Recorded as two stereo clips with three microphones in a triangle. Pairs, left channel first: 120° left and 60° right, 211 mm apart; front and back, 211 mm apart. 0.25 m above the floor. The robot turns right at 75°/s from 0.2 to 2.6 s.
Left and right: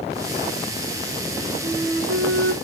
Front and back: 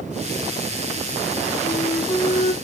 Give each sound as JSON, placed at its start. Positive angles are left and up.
{"t": 1.6, "sound": "a flute", "azimuth_deg": -110, "distance_m": 2.5}